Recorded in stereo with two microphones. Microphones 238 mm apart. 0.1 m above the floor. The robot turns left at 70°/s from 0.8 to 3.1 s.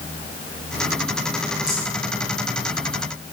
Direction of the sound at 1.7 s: 80° right.